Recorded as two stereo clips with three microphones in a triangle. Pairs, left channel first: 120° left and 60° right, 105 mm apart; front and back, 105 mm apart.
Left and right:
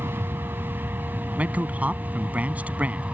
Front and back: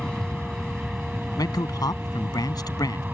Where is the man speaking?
5° left.